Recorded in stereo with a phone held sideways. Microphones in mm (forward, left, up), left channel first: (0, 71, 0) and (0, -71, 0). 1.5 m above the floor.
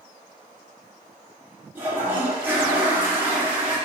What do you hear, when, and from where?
1.8 s a toilet flushing: 10° right (ahead or behind), 0.8 m